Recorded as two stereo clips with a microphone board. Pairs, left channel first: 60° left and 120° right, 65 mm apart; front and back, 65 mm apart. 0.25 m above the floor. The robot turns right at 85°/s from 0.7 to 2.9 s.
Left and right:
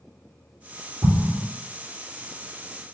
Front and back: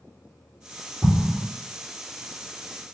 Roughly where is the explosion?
Behind right.